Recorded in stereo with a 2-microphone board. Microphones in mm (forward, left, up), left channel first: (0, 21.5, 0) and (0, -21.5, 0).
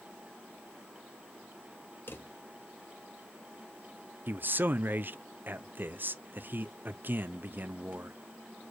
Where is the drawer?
60° left (ahead or behind), 1.3 m.